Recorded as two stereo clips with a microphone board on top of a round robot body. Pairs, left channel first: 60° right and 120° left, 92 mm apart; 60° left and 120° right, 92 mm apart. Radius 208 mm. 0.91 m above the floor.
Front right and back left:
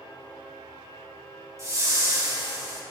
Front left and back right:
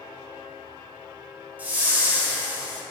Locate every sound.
1.6 s a whoosh: 170° left, 3.5 m